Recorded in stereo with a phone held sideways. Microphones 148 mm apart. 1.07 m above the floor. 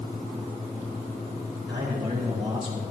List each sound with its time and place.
1.7 s a man speaking: 40° right (ahead or behind), 5 m